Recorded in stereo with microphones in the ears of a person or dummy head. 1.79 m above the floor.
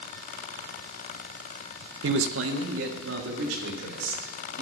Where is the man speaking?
85° right, 0.7 m; by 4.6 s 80° right, 4 m.